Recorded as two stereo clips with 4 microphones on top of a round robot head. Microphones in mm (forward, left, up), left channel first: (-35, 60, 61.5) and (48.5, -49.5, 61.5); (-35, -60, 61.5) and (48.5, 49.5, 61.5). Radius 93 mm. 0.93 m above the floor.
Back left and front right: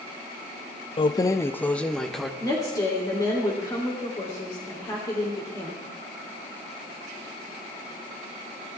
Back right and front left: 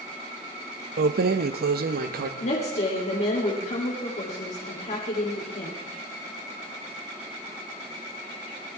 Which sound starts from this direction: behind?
A woman speaking, at 2.4 s.